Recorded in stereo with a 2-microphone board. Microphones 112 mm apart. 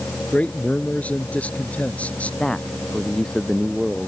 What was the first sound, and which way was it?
A man speaking, 15° left (ahead or behind).